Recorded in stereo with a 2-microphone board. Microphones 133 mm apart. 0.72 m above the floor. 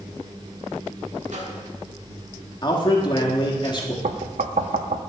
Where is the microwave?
60° right (ahead or behind), 1.8 m.